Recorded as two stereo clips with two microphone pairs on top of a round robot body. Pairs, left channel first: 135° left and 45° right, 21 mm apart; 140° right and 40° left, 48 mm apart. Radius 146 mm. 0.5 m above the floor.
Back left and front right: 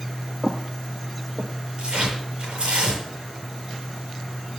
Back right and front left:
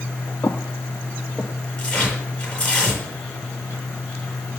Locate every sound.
0.4 s footsteps: 85° right, 0.6 m; by 1.5 s 35° right, 1.1 m
1.8 s tearing paper: 70° right, 7 m